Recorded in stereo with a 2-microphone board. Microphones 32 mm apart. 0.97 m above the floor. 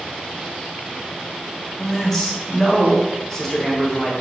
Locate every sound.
1.8 s a man speaking: 10° left (ahead or behind), 0.8 m